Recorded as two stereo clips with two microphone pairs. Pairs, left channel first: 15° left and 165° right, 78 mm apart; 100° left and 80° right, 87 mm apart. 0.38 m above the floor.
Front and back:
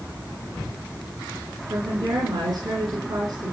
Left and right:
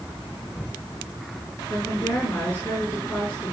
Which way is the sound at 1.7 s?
170° left.